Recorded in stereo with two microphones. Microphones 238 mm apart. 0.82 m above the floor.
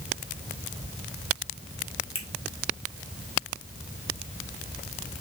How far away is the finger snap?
About 1.7 m.